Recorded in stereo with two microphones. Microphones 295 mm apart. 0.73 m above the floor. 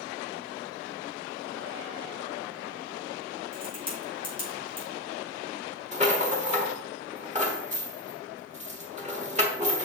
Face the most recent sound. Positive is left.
turn(degrees=-25)  # may be behind; listen again after turning